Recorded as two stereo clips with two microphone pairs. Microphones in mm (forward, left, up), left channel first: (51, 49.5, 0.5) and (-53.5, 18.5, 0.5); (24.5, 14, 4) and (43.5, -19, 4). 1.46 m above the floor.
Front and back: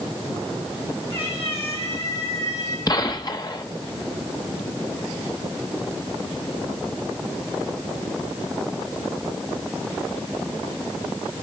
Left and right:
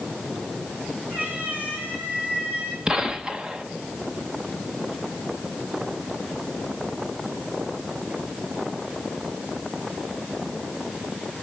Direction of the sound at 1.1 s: 15° right.